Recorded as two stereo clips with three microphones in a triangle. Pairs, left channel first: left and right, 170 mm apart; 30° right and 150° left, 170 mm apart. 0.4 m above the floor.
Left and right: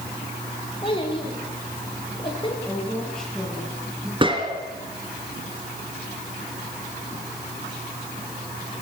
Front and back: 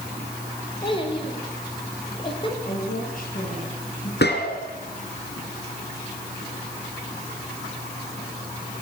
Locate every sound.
0.8 s a child speaking: 30° left, 5.5 m
2.6 s a woman speaking: 5° left, 9.5 m
4.2 s a gunshot: 30° right, 3.5 m